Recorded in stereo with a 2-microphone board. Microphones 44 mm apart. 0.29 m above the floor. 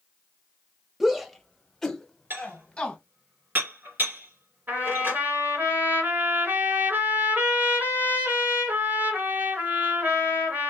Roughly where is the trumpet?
Right.